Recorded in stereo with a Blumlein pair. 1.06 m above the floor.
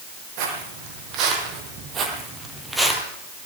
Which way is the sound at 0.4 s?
45° right.